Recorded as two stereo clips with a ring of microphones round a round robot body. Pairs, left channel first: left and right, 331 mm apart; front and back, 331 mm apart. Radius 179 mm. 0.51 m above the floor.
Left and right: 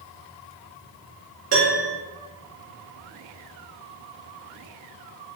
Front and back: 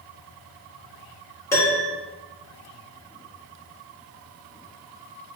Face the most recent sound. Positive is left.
turn(degrees=-75)